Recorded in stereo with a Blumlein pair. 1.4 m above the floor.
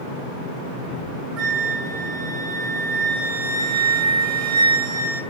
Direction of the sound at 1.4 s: 20° right.